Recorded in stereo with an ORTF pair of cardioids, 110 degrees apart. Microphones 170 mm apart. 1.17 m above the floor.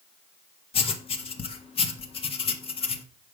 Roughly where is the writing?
Ahead left.